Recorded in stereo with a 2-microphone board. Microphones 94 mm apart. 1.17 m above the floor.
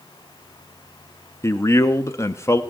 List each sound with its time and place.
1.4 s a man speaking: 30° left (ahead or behind), 0.8 m